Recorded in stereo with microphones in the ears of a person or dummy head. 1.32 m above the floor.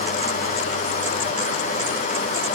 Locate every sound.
Only background noise.